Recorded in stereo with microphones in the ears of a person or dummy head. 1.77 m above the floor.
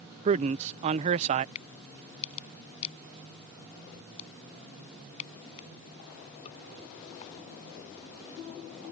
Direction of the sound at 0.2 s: 30° right (ahead or behind).